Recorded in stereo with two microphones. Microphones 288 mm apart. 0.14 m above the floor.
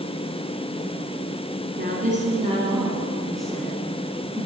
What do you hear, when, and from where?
1.8 s a woman speaking: 35° right (ahead or behind), 2.0 m; by 4.5 s 25° left (ahead or behind), 1.8 m